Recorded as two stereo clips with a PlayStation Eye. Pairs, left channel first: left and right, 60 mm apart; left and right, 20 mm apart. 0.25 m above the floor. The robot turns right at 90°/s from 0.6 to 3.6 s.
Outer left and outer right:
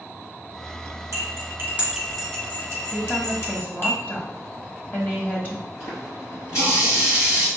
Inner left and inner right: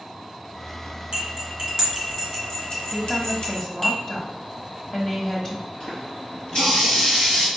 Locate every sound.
1.1 s cutlery clinking: 55° right (ahead or behind), 1.3 m; by 3.9 s 40° left (ahead or behind), 1.3 m
2.9 s a woman speaking: 30° left, 1.1 m; by 5.7 s 90° left, 1.1 m
5.8 s a running tap: 55° left (ahead or behind), 2.5 m